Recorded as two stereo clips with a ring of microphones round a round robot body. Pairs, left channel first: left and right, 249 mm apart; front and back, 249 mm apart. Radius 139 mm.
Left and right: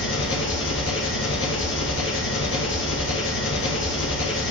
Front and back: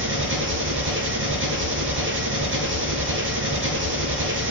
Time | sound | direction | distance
0.0 | an engine running | 140° left | 2.5 m